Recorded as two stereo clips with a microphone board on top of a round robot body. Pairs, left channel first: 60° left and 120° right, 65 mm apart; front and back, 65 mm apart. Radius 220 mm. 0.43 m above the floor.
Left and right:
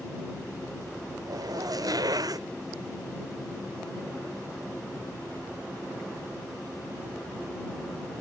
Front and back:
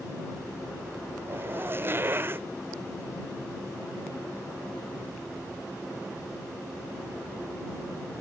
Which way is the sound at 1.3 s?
125° right.